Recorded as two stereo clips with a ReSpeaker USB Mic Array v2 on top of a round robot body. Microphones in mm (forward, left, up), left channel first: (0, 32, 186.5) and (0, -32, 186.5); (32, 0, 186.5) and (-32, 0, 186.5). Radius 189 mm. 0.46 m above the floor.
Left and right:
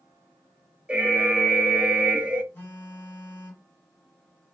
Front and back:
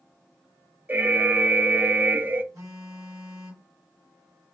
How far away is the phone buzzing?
About 0.8 m.